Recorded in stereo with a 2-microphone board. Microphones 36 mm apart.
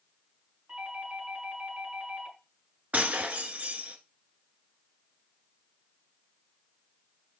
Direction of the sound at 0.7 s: 50° right (ahead or behind).